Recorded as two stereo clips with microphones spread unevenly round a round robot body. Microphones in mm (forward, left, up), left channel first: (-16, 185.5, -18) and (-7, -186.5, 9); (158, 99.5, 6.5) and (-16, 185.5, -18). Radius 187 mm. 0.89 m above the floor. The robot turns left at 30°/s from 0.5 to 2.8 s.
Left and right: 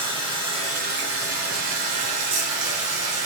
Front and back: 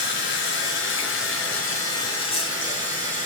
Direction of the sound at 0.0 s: 10° right.